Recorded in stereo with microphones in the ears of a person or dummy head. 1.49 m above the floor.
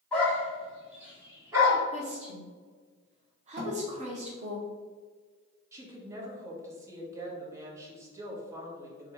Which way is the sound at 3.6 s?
50° right (ahead or behind).